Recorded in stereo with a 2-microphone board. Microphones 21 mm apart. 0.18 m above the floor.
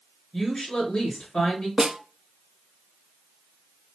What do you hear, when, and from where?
0.3 s a woman speaking: 55° left (ahead or behind), 2.5 m
1.8 s a snare drum: 35° right (ahead or behind), 0.7 m